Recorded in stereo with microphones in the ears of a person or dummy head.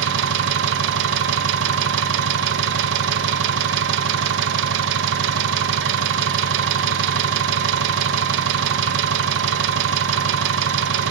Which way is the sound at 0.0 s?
65° right (ahead or behind).